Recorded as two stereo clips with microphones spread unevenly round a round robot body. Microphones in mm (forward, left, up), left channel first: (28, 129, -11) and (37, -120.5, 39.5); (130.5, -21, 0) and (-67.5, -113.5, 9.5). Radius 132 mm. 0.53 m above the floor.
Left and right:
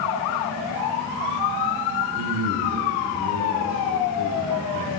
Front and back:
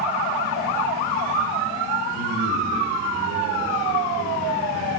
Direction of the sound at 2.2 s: 145° right.